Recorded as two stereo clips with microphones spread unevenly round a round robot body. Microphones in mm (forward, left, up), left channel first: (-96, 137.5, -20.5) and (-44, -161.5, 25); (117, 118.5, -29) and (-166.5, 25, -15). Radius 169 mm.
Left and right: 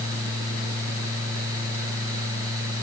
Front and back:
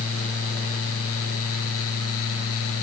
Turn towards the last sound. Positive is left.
No sound to turn to.